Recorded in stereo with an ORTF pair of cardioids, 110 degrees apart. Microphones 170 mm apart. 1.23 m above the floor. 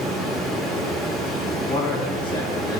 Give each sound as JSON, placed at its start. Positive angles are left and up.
{"t": 0.0, "sound": "running water", "azimuth_deg": 0, "distance_m": 2.0}
{"t": 1.7, "sound": "a man speaking", "azimuth_deg": 30, "distance_m": 2.0}